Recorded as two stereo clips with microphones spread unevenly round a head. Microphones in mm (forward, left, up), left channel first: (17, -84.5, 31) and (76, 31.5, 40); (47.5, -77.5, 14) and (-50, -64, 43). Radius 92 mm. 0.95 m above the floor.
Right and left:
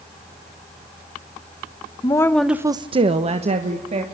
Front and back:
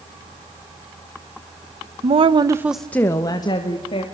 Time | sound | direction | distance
2.0 | a woman speaking | 170° right | 1.1 m